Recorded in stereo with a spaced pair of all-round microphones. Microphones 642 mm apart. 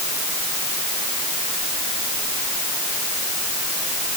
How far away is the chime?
No chime in this recording.